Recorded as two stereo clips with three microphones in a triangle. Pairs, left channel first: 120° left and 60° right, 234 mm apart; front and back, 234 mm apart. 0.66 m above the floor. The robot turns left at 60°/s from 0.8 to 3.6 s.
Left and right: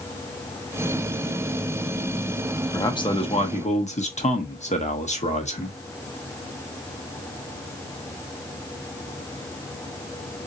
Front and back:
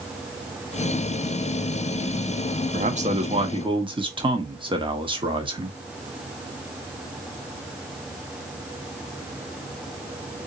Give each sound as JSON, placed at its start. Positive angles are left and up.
{"t": 2.7, "sound": "a man speaking", "azimuth_deg": -175, "distance_m": 1.0}